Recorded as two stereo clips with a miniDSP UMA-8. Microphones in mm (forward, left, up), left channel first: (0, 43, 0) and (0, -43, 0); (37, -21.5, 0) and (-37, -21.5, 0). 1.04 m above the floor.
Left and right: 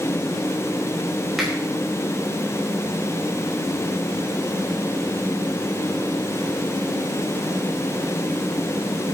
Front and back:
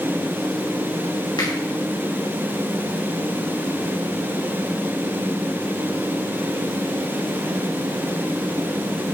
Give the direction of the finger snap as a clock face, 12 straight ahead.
12 o'clock.